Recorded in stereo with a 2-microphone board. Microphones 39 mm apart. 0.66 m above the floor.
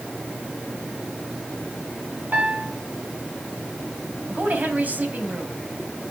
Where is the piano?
45° right (ahead or behind), 4 m.